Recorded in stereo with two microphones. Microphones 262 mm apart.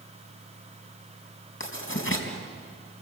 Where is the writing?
50° left (ahead or behind), 4.5 m.